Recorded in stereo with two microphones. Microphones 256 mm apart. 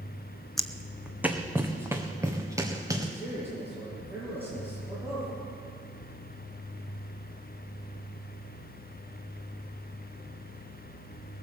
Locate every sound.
0.6 s footsteps: centre (ahead or behind), 0.8 m; by 3.0 s 15° right (ahead or behind), 2.5 m
3.1 s a man speaking: 10° right (ahead or behind), 7.5 m